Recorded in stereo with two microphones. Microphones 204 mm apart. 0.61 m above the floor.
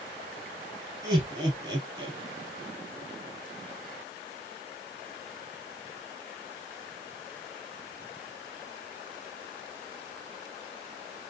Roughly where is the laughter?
Centre.